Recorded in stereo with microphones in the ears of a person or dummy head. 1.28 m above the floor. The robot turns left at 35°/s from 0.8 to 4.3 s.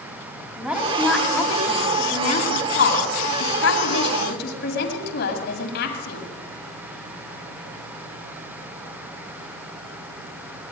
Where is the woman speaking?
175° right, 8.5 m; by 6.2 s 65° left, 8.5 m.